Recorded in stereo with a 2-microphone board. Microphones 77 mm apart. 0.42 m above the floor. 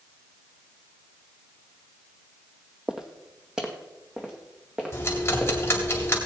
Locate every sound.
2.9 s footsteps: 10° right (ahead or behind), 0.9 m
4.9 s ticking: 30° left (ahead or behind), 2.5 m